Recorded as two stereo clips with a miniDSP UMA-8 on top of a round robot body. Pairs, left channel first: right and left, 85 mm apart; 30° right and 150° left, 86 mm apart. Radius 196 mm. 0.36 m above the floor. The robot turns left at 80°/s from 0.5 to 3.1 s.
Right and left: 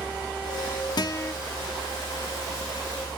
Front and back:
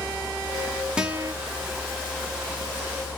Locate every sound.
1.0 s a guitar: 130° right, 0.5 m; by 1.3 s 160° right, 0.5 m